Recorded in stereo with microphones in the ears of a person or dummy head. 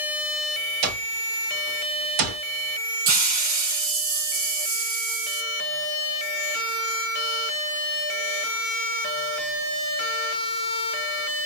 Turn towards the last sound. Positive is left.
turn(degrees=-50)  # may be behind; listen again after turning